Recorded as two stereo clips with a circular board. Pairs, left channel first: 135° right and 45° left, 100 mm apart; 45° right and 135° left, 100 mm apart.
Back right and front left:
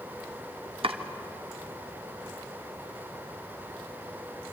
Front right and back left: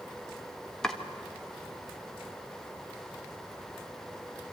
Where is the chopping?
40° left, 1.3 m.